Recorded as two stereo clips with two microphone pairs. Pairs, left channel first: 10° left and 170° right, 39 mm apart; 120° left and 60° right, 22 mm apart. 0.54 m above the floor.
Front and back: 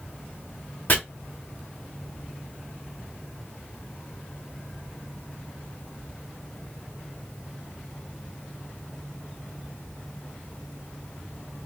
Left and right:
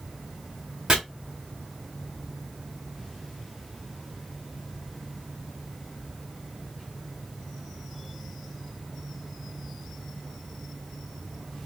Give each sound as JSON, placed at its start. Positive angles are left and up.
{"t": 0.9, "sound": "chopping", "azimuth_deg": -10, "distance_m": 1.0}